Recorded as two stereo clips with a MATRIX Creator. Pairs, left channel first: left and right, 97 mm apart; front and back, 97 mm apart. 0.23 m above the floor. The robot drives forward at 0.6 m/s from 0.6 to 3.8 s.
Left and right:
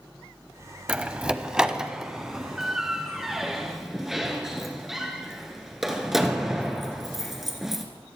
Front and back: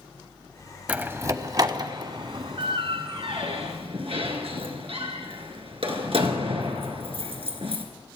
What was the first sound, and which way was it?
A door slam, 140° right.